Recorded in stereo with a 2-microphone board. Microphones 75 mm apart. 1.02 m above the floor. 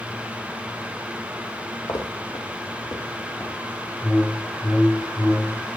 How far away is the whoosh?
About 0.9 m.